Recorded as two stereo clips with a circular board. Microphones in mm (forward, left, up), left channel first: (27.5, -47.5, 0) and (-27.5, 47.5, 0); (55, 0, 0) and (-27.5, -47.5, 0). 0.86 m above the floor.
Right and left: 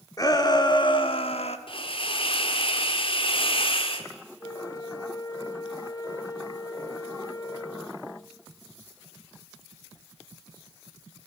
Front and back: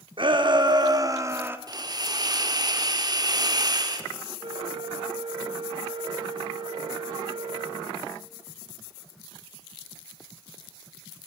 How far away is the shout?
About 2.5 m.